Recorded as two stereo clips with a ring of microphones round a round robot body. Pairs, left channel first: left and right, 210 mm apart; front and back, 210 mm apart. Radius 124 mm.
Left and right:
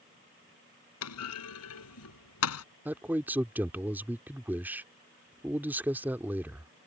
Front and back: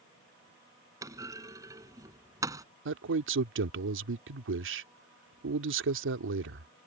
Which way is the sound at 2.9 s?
170° right.